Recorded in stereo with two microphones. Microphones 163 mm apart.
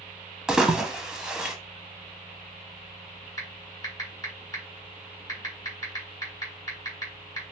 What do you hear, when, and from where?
0.5 s a splash: 5° right (ahead or behind), 0.5 m
3.4 s typing on a keyboard: 20° left (ahead or behind), 1.7 m